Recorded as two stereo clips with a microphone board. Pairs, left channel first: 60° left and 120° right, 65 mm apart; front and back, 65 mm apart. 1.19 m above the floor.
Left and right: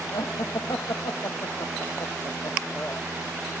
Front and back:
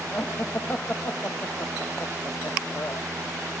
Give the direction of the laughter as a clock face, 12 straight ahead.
10 o'clock.